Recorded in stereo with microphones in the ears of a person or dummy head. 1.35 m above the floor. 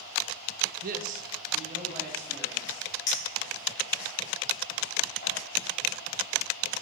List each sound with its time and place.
0.8 s a man speaking: 55° right (ahead or behind), 0.6 m; by 2.9 s 35° right (ahead or behind), 3.5 m
3.1 s a clink: 55° left (ahead or behind), 5 m